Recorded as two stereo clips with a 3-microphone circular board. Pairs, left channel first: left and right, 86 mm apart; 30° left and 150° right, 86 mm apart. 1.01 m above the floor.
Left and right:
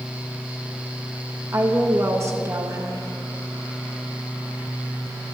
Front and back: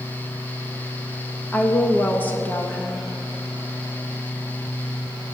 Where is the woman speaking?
40° right, 1.0 m.